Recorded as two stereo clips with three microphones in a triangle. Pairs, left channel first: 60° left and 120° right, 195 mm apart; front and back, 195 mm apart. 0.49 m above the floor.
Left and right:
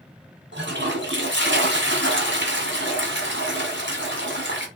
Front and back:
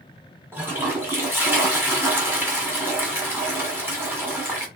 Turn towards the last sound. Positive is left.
turn(degrees=-100)